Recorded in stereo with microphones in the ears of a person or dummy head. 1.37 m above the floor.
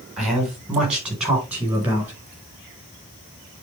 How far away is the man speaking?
About 4.5 m.